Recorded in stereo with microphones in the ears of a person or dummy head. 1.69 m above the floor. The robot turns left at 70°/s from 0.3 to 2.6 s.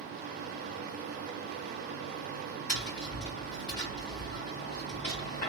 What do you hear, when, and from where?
2.7 s tapping: 50° left (ahead or behind), 2.5 m